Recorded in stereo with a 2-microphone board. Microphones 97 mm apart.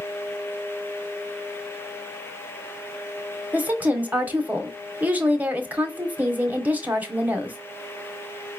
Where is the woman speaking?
20° right (ahead or behind), 1.1 m.